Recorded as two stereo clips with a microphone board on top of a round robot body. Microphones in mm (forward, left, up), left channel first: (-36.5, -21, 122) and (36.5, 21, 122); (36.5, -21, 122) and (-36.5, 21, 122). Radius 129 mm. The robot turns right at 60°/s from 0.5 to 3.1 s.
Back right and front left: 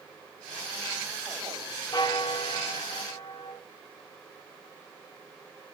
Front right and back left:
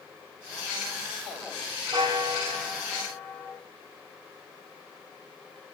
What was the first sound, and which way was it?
A bell, 175° left.